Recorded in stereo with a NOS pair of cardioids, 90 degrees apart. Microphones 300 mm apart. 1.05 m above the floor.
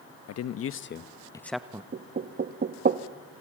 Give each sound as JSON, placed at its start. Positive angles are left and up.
{"t": 0.3, "sound": "a man speaking", "azimuth_deg": 60, "distance_m": 1.1}
{"t": 1.9, "sound": "knocking", "azimuth_deg": -35, "distance_m": 1.0}